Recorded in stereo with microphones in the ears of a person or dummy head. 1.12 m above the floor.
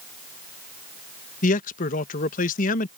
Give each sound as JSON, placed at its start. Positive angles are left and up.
{"t": 1.4, "sound": "a man speaking", "side_deg": 40}